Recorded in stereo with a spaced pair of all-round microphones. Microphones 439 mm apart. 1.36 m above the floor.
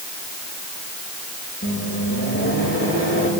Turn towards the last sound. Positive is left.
turn(degrees=30)  # may be behind; listen again after turning